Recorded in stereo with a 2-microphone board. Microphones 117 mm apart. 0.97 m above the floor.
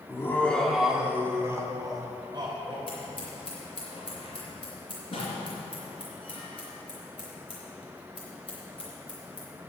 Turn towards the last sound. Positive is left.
turn(degrees=50)  # may be behind; listen again after turning